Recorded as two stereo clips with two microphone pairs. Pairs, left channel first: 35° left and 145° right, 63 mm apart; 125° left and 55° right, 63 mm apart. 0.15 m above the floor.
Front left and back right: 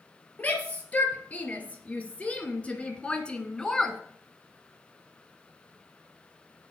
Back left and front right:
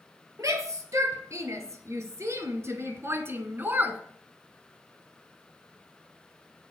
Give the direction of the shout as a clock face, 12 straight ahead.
1 o'clock.